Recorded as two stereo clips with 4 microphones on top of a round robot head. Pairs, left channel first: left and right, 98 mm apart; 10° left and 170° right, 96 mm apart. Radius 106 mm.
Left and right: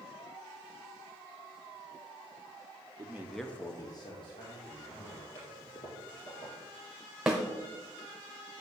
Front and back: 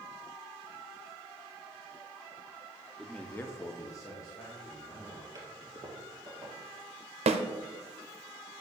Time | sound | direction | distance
3.0 | a man speaking | 80° right | 0.7 m
5.3 | a toilet flushing | 140° left | 3 m
7.3 | a snare drum | 175° right | 0.5 m